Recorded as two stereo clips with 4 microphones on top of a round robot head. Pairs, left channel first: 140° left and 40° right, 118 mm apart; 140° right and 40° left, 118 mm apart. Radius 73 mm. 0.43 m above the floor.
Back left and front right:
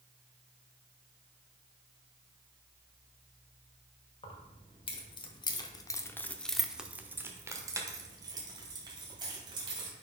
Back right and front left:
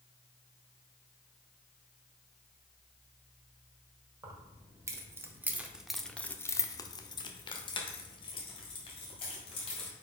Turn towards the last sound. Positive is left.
turn(degrees=-95)